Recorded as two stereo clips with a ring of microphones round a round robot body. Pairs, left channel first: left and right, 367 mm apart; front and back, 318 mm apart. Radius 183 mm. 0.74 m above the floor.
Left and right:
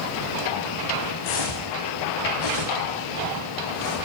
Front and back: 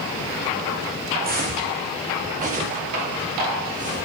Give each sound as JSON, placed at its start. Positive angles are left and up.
{"t": 1.2, "sound": "footsteps", "azimuth_deg": 120, "distance_m": 3.0}